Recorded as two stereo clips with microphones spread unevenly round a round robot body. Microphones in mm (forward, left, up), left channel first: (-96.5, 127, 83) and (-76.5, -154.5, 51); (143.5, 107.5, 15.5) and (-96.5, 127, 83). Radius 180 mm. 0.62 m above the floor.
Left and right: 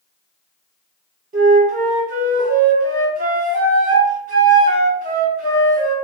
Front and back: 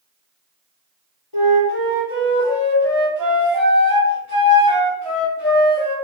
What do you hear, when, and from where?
1.3 s a flute: 145° right, 1.9 m